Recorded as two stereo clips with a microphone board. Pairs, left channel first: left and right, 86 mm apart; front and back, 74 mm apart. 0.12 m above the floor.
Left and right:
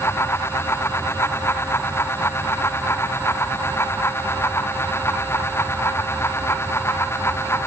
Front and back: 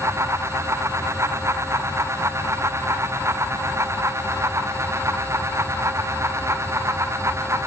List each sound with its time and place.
Only background noise.